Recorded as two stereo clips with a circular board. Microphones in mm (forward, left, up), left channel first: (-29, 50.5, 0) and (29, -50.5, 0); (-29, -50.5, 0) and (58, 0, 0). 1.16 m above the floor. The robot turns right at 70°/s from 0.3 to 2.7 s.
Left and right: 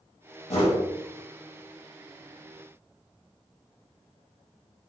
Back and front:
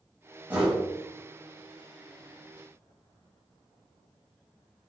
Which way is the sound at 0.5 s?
100° left.